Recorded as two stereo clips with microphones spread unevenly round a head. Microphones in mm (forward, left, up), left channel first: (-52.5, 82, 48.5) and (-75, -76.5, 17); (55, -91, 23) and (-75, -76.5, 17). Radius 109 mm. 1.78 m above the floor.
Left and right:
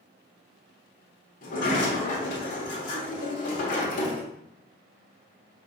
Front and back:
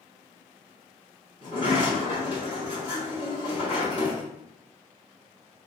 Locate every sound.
1.4 s a sliding door: 105° left, 1.3 m